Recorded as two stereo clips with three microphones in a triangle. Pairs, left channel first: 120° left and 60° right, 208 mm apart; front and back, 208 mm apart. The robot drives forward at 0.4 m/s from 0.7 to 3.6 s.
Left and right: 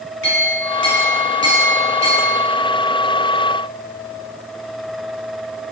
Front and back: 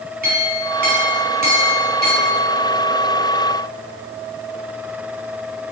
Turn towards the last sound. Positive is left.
turn(degrees=150)